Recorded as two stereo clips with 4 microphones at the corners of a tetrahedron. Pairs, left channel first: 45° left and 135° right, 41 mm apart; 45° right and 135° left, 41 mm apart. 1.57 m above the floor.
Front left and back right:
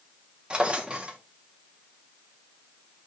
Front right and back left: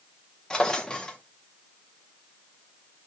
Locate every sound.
0.5 s a drawer: 100° right, 0.7 m